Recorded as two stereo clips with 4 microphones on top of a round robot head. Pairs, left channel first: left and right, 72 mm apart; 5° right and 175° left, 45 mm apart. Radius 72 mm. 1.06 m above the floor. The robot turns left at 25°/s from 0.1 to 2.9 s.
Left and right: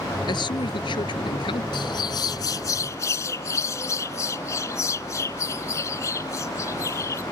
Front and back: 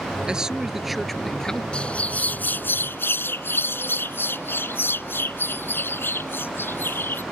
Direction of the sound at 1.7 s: 65° left.